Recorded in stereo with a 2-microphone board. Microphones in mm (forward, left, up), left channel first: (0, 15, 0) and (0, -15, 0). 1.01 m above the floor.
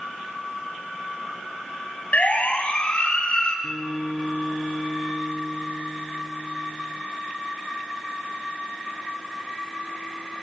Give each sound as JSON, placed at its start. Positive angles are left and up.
{"t": 2.1, "sound": "a siren", "side_deg": 55, "distance_m": 7.0}
{"t": 3.6, "sound": "a guitar", "side_deg": 20, "distance_m": 4.5}